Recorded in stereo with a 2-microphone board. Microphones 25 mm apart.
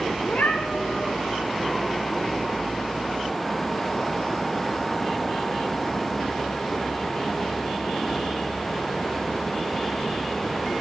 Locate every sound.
0.2 s a cat meowing: 55° left (ahead or behind), 5.5 m